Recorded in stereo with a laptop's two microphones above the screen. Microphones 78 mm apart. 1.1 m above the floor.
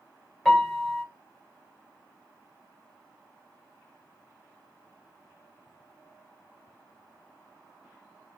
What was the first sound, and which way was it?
A piano, 5° left (ahead or behind).